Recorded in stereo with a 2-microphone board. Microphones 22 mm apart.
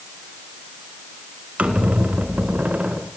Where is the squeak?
90° right, 2 m.